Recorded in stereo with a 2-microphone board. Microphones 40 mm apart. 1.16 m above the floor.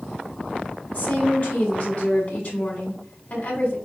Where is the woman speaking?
45° left (ahead or behind), 2.5 m.